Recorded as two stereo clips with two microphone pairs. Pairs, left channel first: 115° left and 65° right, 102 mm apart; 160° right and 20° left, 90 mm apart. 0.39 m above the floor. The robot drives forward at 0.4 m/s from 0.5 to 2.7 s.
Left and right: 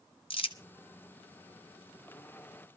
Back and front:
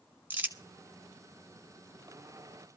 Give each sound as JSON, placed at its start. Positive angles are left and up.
{"t": 0.3, "sound": "crumpling", "azimuth_deg": 90, "distance_m": 1.7}